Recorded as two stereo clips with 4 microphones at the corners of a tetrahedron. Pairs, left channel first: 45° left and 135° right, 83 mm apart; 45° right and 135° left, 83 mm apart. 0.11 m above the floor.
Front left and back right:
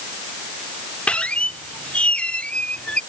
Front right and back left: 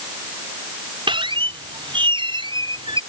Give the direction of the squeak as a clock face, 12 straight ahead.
8 o'clock.